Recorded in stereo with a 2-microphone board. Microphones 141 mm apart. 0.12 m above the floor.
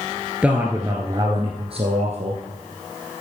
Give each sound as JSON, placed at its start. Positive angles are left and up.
{"t": 0.4, "sound": "a man speaking", "side_deg": -5, "distance_m": 1.6}